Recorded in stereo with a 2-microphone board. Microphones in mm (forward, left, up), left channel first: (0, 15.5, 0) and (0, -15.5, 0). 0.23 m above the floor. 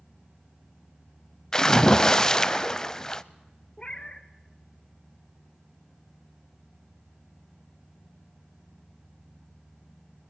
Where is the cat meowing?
30° left (ahead or behind), 0.9 m.